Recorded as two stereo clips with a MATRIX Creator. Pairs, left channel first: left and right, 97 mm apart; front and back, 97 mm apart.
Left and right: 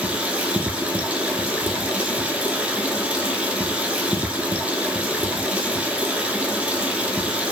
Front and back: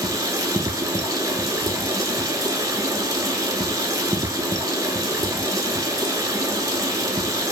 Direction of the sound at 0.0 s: 160° right.